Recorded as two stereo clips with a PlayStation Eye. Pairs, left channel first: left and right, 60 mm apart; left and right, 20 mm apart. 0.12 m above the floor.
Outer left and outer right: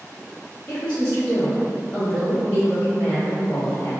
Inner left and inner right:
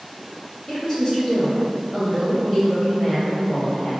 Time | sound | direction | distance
0.7 | a woman speaking | 15° left (ahead or behind) | 1.7 m